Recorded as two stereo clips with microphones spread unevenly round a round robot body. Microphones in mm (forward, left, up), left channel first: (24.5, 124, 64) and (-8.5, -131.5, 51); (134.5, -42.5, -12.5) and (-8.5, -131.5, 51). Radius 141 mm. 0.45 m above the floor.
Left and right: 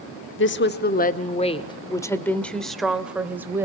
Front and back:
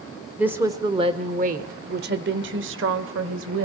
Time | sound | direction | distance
0.4 | a woman speaking | 110° left | 1.1 m